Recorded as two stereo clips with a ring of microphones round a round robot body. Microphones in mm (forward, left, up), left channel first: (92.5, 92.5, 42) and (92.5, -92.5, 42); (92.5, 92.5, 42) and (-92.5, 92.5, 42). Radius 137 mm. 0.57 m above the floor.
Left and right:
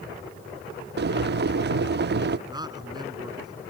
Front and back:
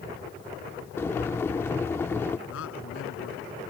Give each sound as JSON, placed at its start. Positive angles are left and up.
{"t": 1.0, "sound": "boiling", "azimuth_deg": -80}
{"t": 2.5, "sound": "a man speaking", "azimuth_deg": -20}